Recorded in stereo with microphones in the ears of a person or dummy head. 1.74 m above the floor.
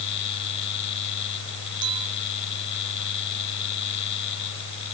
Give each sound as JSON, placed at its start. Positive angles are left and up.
{"t": 0.0, "sound": "a fan", "side_deg": 60}
{"t": 1.8, "sound": "a clink", "side_deg": -30}